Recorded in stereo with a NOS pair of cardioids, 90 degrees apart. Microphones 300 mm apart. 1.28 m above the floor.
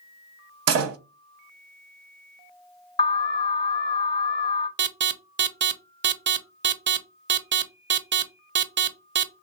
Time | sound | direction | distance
0.7 | a door slam | 55° right | 0.7 m
3.0 | an alarm | 15° left | 0.7 m
4.8 | an alarm | 40° right | 0.5 m